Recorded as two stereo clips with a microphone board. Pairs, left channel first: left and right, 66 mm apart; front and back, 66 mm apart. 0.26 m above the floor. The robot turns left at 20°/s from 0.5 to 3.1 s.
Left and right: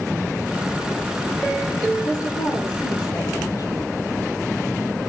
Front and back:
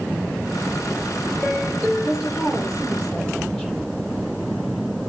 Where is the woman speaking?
105° left, 8 m; by 3.8 s 80° left, 8 m.